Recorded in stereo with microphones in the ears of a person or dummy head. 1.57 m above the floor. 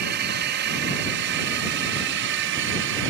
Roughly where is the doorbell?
No doorbell in this recording.